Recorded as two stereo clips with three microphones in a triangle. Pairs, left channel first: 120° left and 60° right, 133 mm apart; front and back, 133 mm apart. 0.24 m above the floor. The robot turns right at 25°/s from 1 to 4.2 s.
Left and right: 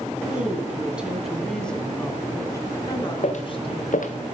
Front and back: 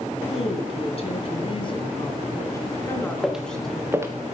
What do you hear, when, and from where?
0.3 s a woman speaking: 20° left, 2.0 m; by 4.1 s 100° left, 2.0 m
3.2 s footsteps: 90° left, 1.3 m; by 4.1 s 115° left, 1.3 m